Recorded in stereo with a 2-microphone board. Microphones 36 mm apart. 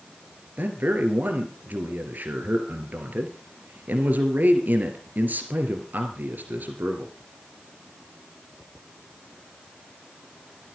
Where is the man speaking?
55° right (ahead or behind), 2.5 m.